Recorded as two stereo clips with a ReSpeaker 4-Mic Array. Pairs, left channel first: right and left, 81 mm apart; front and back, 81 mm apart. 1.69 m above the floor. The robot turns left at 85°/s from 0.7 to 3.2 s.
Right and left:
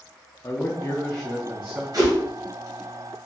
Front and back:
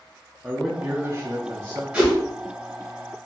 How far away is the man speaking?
About 0.7 m.